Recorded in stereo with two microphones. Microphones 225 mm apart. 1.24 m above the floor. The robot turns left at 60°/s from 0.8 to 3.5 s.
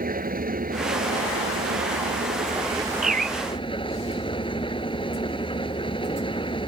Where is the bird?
35° right (ahead or behind); by 3.4 s 50° right (ahead or behind).